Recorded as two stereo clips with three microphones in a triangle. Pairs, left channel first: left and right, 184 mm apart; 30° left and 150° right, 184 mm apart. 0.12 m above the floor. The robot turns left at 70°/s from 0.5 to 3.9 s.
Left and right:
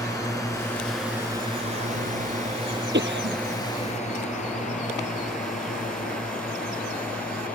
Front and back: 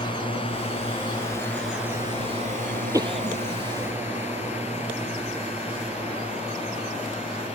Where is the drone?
45° left; by 7.5 s 125° left.